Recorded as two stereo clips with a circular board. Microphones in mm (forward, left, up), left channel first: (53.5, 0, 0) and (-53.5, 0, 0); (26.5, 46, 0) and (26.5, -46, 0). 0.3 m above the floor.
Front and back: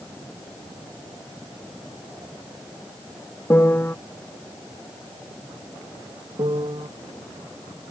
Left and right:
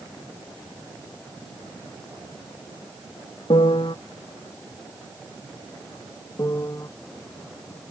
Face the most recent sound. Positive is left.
turn(degrees=145)